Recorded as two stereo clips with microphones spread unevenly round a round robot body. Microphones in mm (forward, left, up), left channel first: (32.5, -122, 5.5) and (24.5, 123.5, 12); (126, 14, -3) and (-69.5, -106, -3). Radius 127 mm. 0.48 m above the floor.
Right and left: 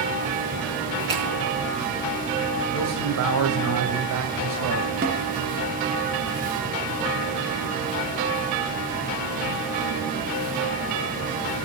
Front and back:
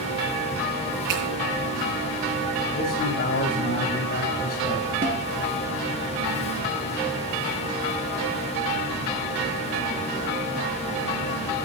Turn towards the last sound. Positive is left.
turn(degrees=150)